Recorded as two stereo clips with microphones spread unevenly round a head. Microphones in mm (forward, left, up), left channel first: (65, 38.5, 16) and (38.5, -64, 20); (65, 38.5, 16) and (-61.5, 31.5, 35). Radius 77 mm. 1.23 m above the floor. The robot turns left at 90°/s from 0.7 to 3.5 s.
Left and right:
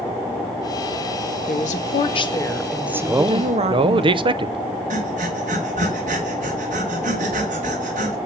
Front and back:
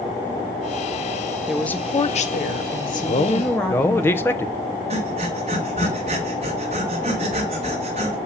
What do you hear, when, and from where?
1.5 s a woman speaking: 100° left, 1.3 m; by 4.0 s 80° right, 1.3 m
3.0 s a man speaking: 25° right, 0.8 m; by 4.6 s 65° right, 0.8 m
4.9 s breathing: 125° right, 2 m